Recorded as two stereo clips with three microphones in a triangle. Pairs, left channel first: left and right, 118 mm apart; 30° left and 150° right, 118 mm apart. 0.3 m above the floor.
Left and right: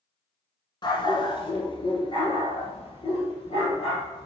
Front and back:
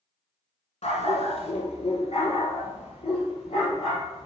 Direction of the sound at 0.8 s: 45° left.